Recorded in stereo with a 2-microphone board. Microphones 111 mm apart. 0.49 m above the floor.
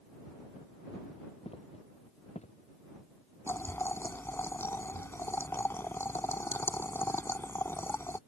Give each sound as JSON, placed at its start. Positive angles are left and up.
{"t": 1.4, "sound": "footsteps", "side_deg": 65}
{"t": 3.5, "sound": "boiling", "side_deg": 20}